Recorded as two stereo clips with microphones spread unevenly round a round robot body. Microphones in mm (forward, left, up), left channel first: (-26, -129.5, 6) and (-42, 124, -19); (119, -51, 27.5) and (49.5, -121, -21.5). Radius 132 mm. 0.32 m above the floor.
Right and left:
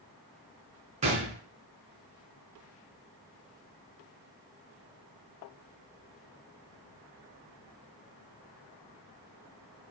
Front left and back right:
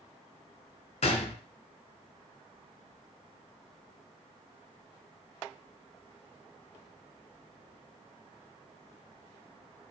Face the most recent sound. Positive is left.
turn(degrees=25)